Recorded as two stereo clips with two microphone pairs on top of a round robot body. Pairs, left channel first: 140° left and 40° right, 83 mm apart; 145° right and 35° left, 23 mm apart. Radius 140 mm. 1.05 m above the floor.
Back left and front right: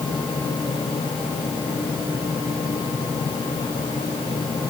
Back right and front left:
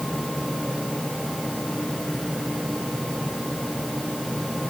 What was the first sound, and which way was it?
Only background noise.